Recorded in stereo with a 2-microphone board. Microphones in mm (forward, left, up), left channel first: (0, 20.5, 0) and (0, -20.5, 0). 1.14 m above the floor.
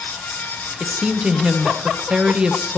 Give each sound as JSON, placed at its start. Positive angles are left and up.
{"t": 0.8, "sound": "a woman speaking", "side_deg": -25, "distance_m": 0.9}